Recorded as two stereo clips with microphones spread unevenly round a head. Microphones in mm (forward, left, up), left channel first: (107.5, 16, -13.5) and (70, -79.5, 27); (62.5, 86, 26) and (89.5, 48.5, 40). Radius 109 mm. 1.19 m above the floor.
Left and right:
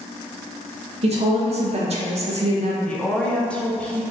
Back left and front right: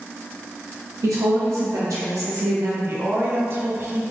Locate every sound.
1.0 s a woman speaking: 75° right, 0.6 m
2.8 s a woman speaking: 10° right, 0.7 m